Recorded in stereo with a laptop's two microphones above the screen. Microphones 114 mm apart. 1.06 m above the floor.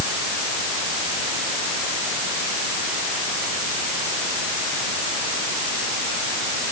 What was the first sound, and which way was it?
Only background noise.